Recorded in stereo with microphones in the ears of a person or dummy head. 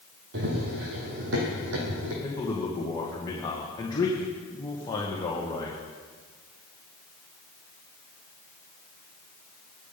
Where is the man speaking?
20° left (ahead or behind), 1.9 m.